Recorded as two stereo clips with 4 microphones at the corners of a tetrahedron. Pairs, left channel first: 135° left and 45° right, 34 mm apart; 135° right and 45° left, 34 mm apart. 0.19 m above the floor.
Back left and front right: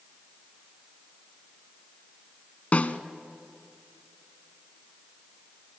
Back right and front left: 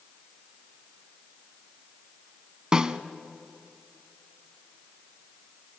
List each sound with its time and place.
2.7 s a snare drum: 105° left, 0.8 m